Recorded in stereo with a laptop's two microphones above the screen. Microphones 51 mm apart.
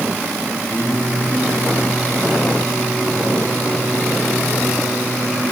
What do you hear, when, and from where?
0.7 s singing: 35° left (ahead or behind), 8.5 m